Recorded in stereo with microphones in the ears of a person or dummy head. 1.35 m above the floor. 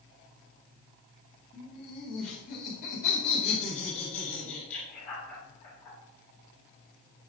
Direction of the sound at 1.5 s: 45° left (ahead or behind).